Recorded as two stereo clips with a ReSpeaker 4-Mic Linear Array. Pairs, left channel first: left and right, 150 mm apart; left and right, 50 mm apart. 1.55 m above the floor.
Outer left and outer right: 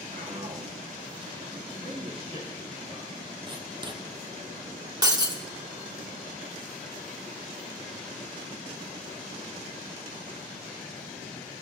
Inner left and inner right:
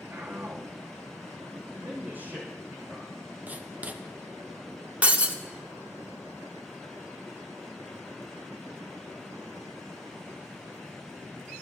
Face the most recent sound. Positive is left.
turn(degrees=-30)  # may be behind; listen again after turning